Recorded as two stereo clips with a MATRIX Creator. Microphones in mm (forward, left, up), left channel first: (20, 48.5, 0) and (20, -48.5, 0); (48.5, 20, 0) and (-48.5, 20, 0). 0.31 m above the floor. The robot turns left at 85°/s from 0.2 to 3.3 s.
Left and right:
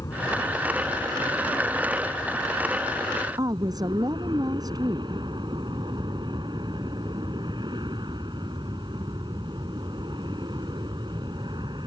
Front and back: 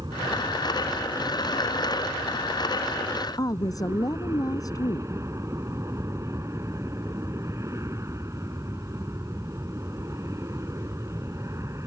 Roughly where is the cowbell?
I don't hear a cowbell.